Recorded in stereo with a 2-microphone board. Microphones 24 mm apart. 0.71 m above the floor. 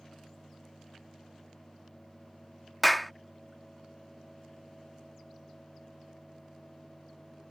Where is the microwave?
I don't hear a microwave.